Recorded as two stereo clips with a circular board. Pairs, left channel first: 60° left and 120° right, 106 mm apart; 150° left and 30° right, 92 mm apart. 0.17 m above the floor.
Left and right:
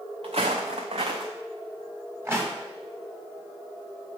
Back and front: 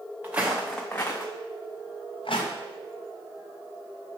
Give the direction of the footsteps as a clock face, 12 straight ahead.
3 o'clock.